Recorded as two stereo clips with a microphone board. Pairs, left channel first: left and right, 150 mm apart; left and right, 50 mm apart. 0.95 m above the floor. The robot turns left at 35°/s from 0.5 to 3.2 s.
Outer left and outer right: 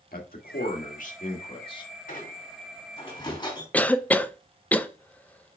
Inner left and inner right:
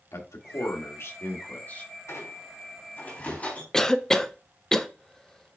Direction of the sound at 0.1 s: 80° left.